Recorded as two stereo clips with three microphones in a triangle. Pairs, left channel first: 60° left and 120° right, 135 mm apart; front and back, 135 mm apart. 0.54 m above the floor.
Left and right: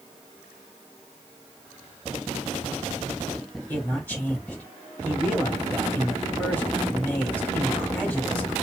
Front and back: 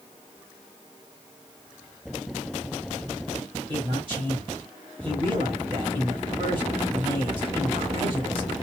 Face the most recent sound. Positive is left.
turn(degrees=135)